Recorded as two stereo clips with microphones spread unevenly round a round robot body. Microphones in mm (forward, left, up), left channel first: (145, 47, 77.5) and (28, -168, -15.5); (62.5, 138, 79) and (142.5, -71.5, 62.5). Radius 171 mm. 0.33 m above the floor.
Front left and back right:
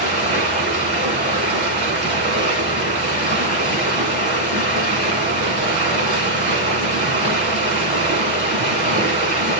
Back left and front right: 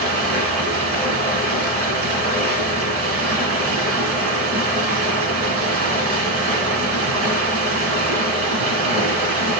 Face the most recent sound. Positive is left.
turn(degrees=-75)